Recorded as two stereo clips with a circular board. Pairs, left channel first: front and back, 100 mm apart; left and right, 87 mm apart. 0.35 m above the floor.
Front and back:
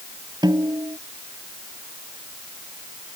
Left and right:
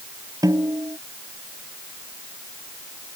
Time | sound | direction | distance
0.4 | a snare drum | 135° right | ?